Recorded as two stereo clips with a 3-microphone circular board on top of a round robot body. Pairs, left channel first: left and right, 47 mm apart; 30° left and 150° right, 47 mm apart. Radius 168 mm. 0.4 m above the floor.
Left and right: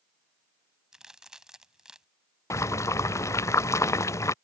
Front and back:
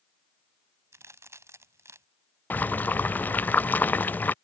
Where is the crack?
165° right.